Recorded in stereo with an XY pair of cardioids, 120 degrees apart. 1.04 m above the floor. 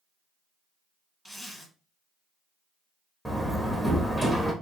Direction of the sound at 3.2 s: 10° left.